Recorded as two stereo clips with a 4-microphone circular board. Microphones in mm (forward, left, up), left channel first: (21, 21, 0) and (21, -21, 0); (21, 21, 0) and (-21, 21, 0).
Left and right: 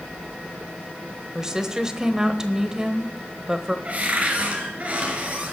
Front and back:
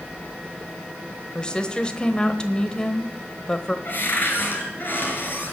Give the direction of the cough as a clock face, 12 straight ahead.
No cough in this recording.